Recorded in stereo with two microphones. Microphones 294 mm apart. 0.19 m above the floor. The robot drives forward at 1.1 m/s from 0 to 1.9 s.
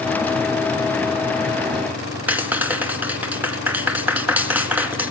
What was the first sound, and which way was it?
A clap, 5° right (ahead or behind).